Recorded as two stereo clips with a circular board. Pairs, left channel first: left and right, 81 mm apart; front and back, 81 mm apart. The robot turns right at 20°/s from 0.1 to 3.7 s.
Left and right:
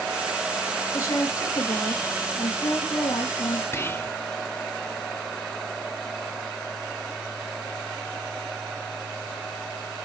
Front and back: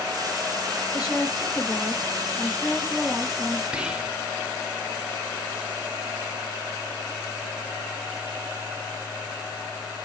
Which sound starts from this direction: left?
Whispering, at 3.7 s.